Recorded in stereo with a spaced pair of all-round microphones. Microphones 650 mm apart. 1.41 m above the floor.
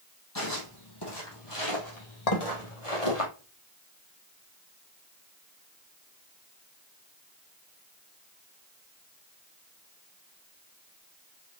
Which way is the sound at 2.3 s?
70° left (ahead or behind).